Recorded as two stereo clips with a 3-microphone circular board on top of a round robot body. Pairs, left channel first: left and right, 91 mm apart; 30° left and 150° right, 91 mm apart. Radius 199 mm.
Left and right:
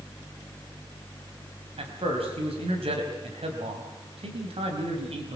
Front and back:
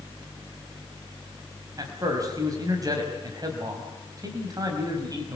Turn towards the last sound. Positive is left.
turn(degrees=-100)